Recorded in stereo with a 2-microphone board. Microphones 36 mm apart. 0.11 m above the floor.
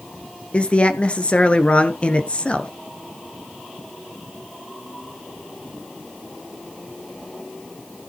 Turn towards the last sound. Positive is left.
turn(degrees=35)  # may be behind; listen again after turning